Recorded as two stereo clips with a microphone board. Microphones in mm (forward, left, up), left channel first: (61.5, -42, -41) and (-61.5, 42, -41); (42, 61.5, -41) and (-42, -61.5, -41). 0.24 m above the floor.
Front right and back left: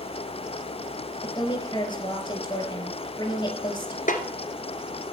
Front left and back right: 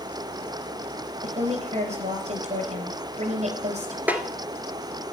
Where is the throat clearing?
I don't hear throat clearing.